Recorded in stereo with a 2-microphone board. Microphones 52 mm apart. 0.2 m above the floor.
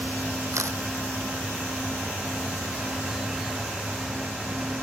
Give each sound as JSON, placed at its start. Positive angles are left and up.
{"t": 0.5, "sound": "a camera shutter", "side_deg": -70}